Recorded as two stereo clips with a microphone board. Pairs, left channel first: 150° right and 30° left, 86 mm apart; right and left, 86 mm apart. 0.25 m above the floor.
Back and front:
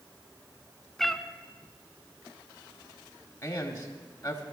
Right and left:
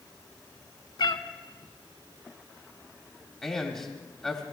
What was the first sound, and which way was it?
A cat meowing, 65° right.